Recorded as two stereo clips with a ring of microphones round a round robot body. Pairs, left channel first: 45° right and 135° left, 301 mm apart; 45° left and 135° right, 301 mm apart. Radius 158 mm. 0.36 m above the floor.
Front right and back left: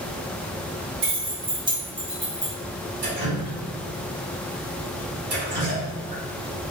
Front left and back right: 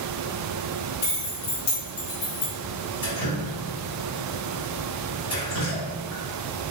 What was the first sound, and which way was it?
Keys jangling, 80° left.